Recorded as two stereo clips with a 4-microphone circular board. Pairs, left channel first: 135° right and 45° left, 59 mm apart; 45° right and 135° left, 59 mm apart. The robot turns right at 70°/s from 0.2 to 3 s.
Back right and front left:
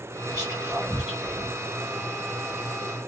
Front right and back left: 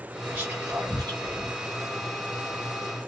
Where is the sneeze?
No sneeze in this recording.